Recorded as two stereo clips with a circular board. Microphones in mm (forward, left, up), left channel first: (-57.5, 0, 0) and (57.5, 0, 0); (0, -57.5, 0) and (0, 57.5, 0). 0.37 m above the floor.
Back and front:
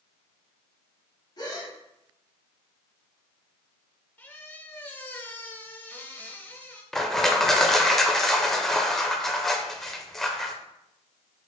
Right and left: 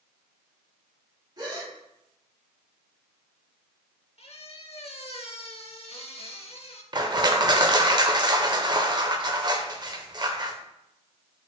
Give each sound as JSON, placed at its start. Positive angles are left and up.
{"t": 1.4, "sound": "a gasp", "azimuth_deg": 135, "distance_m": 1.2}
{"t": 4.2, "sound": "a squeak", "azimuth_deg": -110, "distance_m": 0.6}
{"t": 6.9, "sound": "crushing", "azimuth_deg": 95, "distance_m": 0.5}